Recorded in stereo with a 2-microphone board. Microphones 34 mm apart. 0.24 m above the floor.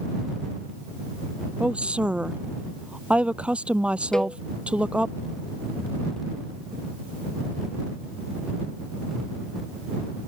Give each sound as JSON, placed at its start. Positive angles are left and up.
{"t": 1.6, "sound": "a woman speaking", "side_deg": -35}
{"t": 4.1, "sound": "a cowbell", "side_deg": 15}